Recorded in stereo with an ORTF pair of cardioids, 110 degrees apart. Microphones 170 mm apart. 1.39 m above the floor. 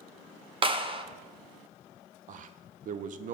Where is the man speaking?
50° right, 0.6 m.